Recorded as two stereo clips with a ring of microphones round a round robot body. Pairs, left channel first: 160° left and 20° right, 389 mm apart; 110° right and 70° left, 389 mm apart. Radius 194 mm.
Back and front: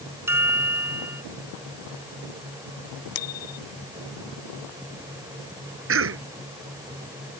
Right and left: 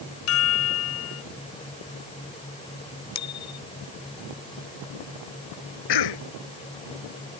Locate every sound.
0.3 s a chime: 105° right
3.1 s a bicycle bell: 165° right
5.9 s a cough: 80° right